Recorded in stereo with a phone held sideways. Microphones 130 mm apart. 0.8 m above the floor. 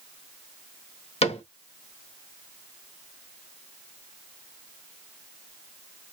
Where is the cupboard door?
50° left (ahead or behind), 1.0 m.